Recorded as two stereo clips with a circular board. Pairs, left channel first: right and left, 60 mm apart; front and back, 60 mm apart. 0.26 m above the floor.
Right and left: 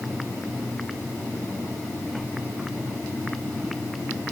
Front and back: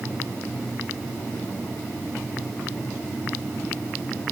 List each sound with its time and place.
Only background noise.